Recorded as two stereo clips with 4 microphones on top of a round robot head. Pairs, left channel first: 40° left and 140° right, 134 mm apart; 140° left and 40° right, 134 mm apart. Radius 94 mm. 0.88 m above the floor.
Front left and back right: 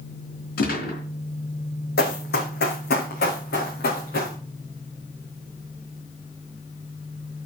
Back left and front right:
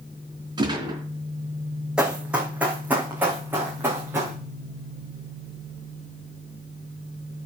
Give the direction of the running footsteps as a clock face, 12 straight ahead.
10 o'clock.